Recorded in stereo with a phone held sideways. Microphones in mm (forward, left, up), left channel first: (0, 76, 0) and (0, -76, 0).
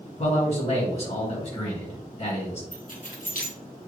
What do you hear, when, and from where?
0.2 s a man speaking: 55° left (ahead or behind), 1.8 m
2.7 s keys jangling: 65° left (ahead or behind), 1.5 m